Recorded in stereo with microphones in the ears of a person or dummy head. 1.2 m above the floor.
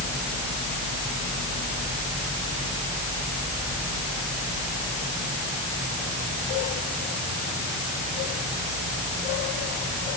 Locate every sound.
Only background noise.